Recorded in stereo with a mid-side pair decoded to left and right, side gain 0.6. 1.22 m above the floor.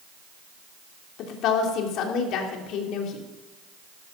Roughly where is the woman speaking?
Ahead left.